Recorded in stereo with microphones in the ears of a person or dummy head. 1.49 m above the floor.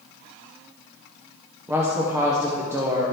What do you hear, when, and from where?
1.7 s a woman speaking: 15° right (ahead or behind), 0.7 m